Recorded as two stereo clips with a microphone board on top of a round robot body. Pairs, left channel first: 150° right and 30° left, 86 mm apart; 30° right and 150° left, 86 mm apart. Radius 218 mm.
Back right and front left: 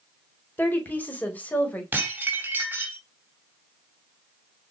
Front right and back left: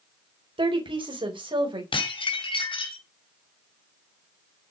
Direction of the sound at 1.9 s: 40° right.